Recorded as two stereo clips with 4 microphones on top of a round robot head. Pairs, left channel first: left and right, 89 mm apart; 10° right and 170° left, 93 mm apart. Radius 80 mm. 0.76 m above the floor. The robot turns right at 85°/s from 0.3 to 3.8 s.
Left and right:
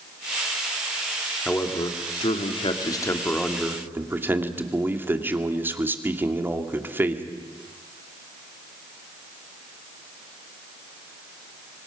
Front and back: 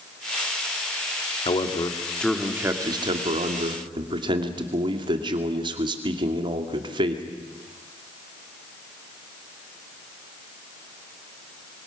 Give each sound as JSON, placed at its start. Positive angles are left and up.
{"t": 1.4, "sound": "a man speaking", "azimuth_deg": 5, "distance_m": 2.5}